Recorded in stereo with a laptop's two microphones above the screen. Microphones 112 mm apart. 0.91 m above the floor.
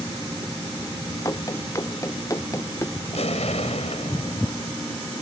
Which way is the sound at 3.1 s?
75° left (ahead or behind).